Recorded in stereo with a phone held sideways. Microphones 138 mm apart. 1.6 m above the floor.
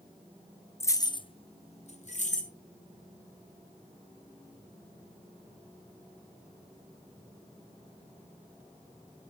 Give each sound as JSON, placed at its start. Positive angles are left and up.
{"t": 0.8, "sound": "keys jangling", "side_deg": 20, "distance_m": 0.6}